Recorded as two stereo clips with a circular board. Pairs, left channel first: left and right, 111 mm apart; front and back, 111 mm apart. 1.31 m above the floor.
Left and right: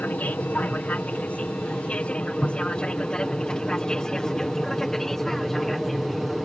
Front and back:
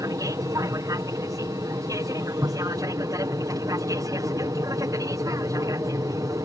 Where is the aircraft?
155° left; by 6.5 s straight behind.